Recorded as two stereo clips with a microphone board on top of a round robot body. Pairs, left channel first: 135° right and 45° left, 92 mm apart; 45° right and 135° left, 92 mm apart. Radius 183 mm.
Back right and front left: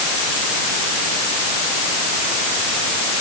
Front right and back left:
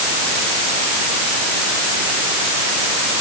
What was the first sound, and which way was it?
Only background noise.